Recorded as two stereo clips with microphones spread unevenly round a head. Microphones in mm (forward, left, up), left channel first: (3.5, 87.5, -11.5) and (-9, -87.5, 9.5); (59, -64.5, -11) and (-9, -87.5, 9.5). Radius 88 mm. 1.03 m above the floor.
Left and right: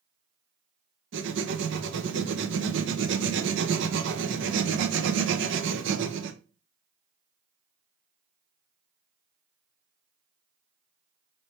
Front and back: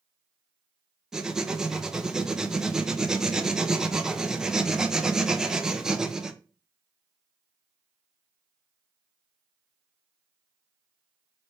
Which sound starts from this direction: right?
Writing, at 1.1 s.